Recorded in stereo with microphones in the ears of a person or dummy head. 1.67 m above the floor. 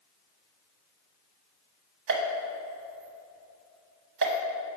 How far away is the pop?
About 0.9 m.